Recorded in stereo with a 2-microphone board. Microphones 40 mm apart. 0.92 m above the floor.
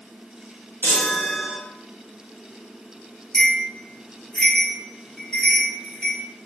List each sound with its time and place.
0.8 s a chime: 60° left (ahead or behind), 1.1 m
3.3 s a bell: 20° left (ahead or behind), 1.5 m